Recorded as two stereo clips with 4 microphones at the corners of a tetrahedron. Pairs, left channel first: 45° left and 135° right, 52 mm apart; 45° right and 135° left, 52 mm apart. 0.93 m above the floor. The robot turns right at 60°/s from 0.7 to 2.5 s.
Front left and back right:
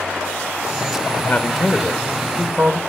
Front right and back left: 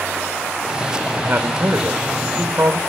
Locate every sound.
1.2 s a man speaking: 85° left, 1.7 m; by 2.8 s 165° left, 1.7 m